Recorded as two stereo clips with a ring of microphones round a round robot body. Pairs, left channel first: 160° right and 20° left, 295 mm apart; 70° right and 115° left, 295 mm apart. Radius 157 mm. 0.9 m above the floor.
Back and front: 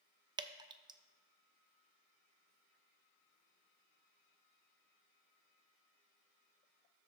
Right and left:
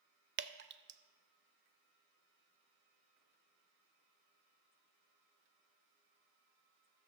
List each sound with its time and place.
0.4 s dripping: 90° left, 0.5 m